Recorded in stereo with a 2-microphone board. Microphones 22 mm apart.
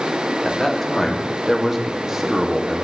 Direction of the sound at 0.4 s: 10° left (ahead or behind).